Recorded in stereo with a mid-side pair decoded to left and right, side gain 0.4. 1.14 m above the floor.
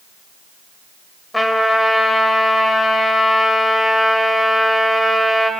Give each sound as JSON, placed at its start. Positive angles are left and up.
{"t": 1.3, "sound": "a trumpet", "azimuth_deg": 10, "distance_m": 4.0}